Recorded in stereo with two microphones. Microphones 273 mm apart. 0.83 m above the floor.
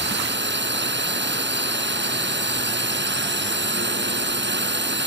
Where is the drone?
40° right (ahead or behind).